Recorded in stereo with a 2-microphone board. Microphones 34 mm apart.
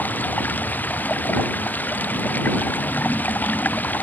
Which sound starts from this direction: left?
Running water, at 0.0 s.